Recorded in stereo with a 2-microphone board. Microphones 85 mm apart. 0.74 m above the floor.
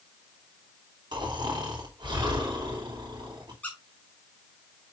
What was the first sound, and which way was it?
Snoring, 60° right (ahead or behind).